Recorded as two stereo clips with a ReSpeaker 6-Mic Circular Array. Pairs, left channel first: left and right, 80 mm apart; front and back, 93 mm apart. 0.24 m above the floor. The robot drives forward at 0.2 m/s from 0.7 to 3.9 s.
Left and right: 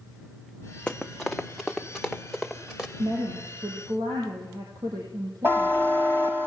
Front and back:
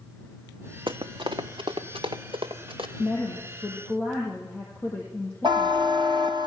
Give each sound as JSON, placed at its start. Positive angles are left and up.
{"t": 0.9, "sound": "running footsteps", "azimuth_deg": 170, "distance_m": 0.8}
{"t": 3.0, "sound": "a woman speaking", "azimuth_deg": -65, "distance_m": 8.0}
{"t": 5.4, "sound": "a buzzer", "azimuth_deg": -150, "distance_m": 2.5}